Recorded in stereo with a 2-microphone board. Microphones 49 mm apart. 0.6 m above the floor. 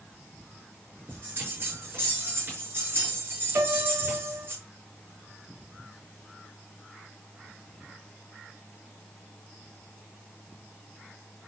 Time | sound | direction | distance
1.1 | a bell | 45° right (ahead or behind) | 6 m
3.5 | a piano | 80° right | 2.5 m